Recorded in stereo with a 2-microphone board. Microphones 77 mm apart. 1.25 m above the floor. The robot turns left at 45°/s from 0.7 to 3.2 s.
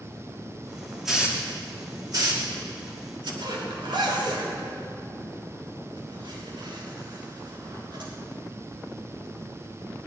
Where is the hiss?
5° right (ahead or behind), 2.5 m; by 3.3 s 80° right, 2.5 m.